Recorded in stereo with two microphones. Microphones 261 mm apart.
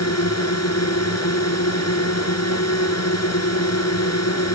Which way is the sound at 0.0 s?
75° left (ahead or behind).